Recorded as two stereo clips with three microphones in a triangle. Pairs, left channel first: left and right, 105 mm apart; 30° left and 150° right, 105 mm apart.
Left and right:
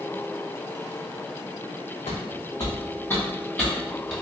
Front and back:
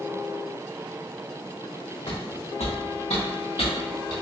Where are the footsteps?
65° left, 1.0 m; by 4.1 s 5° right, 1.7 m.